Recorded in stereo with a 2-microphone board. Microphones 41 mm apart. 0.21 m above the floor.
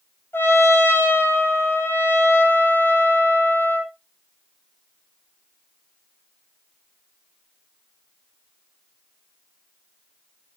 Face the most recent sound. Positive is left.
turn(degrees=75)  # may be behind; listen again after turning